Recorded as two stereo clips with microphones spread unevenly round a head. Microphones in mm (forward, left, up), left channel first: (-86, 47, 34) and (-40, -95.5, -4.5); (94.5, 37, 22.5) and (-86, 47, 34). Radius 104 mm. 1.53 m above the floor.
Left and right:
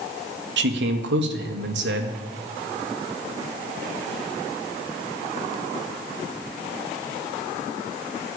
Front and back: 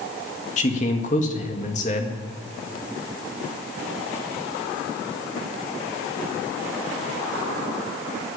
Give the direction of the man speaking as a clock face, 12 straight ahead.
2 o'clock.